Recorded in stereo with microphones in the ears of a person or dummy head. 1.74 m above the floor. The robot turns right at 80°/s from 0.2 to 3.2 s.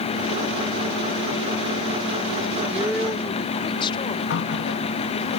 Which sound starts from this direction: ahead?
A woman speaking, at 2.7 s.